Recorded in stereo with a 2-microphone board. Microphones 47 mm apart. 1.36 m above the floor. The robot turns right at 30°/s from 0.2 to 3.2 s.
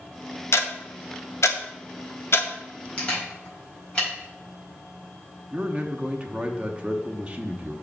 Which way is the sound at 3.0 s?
25° left (ahead or behind).